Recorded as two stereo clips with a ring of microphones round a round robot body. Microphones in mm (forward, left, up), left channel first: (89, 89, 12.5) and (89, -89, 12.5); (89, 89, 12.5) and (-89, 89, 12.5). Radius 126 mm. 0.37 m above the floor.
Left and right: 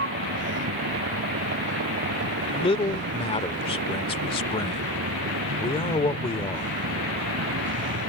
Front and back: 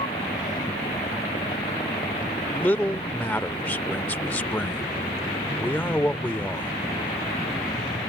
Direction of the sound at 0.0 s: 75° right.